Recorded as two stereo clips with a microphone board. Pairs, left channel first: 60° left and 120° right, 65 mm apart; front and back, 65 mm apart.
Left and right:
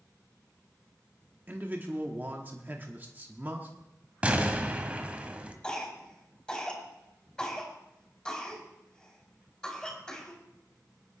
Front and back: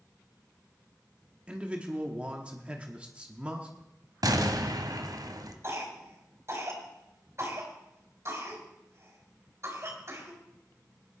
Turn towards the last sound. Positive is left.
turn(degrees=135)